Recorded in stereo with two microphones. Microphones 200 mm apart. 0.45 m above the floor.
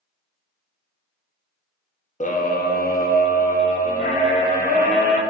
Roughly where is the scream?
Left.